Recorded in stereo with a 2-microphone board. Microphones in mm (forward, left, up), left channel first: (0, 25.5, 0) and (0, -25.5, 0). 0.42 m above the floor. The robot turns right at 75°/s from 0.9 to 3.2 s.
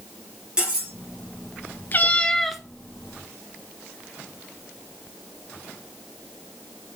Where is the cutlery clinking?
20° right (ahead or behind), 5 m; by 0.9 s 15° right (ahead or behind), 5 m.